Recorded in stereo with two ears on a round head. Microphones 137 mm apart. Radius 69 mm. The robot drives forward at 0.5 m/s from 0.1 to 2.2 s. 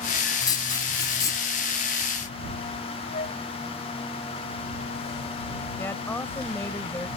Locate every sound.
0.4 s writing: 25° left (ahead or behind)
3.1 s a flute: 45° left (ahead or behind)
5.8 s a woman speaking: 15° left (ahead or behind)